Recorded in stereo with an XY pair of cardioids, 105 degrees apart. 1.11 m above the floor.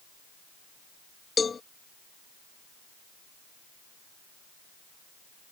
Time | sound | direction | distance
1.4 | a cowbell | 35° left | ?